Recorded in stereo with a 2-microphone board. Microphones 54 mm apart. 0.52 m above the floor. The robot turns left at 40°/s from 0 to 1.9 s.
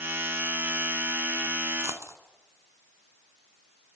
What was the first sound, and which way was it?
A dropped coin, 65° right (ahead or behind).